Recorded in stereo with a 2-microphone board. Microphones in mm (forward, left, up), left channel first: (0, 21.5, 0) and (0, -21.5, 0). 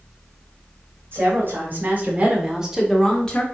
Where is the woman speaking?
55° right (ahead or behind), 2 m; by 3.4 s 25° left (ahead or behind), 1.2 m.